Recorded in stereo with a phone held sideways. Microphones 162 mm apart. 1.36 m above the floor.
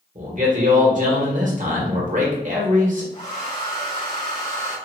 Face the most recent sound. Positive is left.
turn(degrees=45)  # may be behind; listen again after turning